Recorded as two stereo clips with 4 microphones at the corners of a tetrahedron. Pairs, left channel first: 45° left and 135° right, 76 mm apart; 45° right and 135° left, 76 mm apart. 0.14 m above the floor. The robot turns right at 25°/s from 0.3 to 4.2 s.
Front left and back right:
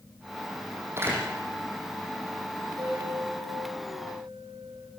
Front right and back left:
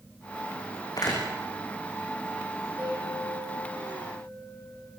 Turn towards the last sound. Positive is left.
turn(degrees=-115)